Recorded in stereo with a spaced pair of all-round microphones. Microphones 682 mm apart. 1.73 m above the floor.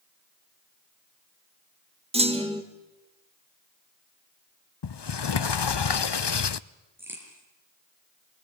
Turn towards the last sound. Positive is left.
turn(degrees=-5)  # may be behind; listen again after turning